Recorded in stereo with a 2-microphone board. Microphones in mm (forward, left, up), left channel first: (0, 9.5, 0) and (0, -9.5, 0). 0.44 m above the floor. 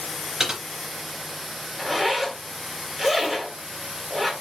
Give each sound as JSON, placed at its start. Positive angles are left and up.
{"t": 0.4, "sound": "typing on a keyboard", "side_deg": -20, "distance_m": 3.0}
{"t": 1.8, "sound": "a zipper", "side_deg": -10, "distance_m": 1.8}